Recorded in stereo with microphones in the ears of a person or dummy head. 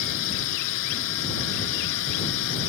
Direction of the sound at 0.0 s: 70° left (ahead or behind).